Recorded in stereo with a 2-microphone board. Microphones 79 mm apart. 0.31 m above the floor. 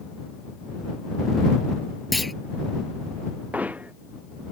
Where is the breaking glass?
No breaking glass in this recording.